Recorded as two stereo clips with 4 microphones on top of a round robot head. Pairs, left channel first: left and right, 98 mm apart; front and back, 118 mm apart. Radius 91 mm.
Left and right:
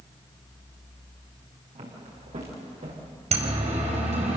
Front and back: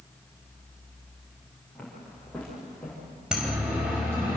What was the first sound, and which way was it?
Footsteps, 85° right.